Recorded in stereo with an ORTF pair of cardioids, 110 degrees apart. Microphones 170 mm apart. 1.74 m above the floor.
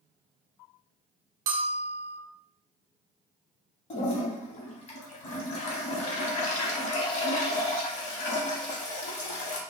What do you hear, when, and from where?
1.5 s a bell: 55° right, 0.6 m
3.9 s a toilet flushing: 45° left, 0.9 m